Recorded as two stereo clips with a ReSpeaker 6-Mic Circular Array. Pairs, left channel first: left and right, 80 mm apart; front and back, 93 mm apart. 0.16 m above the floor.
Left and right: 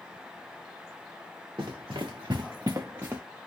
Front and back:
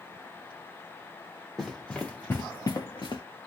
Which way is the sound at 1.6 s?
90° right.